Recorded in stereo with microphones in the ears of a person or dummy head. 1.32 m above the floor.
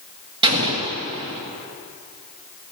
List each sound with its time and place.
0.4 s an explosion: 25° right (ahead or behind), 1.6 m